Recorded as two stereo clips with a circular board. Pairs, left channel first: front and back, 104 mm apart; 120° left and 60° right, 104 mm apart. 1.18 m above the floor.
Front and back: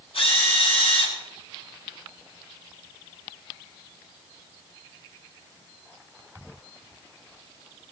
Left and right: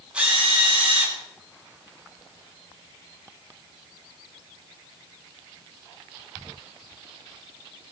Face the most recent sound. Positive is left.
turn(degrees=20)